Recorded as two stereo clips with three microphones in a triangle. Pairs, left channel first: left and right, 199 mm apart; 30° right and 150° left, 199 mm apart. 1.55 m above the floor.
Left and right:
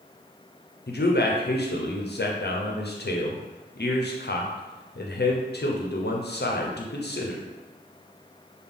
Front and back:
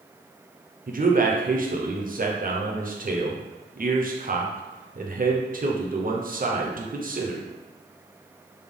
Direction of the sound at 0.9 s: 115° left.